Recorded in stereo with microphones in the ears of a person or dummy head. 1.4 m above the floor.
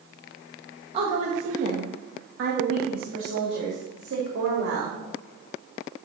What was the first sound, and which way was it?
A woman speaking, 25° right (ahead or behind).